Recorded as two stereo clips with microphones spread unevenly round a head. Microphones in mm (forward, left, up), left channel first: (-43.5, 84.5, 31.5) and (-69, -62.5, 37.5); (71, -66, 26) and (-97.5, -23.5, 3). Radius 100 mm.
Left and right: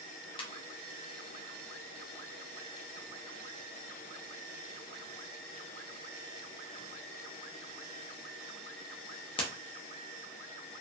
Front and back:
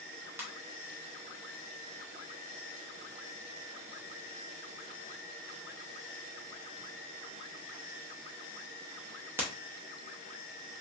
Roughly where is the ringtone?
Left.